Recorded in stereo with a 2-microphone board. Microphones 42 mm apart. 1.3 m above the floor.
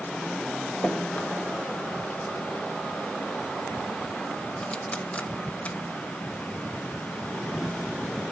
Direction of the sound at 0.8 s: 30° left (ahead or behind).